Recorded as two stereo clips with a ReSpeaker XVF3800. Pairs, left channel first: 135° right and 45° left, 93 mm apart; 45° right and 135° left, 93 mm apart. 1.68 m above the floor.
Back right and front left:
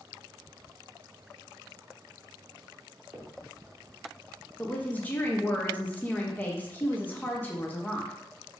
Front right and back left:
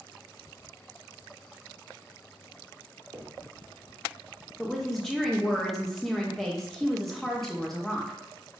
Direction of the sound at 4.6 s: 125° right.